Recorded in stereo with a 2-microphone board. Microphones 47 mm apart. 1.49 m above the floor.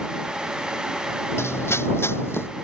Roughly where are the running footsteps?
Left.